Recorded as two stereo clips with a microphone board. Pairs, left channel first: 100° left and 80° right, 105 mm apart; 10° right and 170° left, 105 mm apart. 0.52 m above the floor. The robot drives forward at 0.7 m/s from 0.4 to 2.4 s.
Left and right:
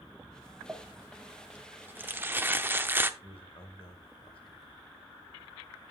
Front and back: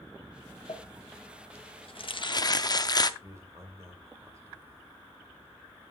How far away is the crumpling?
About 1.6 m.